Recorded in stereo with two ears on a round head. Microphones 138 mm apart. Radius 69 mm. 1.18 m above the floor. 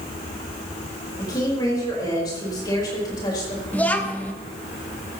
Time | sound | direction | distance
1.2 | a woman speaking | 25° left (ahead or behind) | 4.5 m
3.7 | a child speaking | 10° left (ahead or behind) | 1.1 m